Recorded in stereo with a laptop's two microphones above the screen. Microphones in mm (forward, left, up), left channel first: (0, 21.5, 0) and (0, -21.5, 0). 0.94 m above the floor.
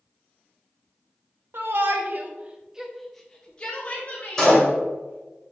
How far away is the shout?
About 0.8 m.